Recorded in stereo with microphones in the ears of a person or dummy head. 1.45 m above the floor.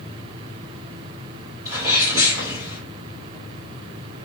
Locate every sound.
1.6 s a sneeze: 20° right (ahead or behind), 1.6 m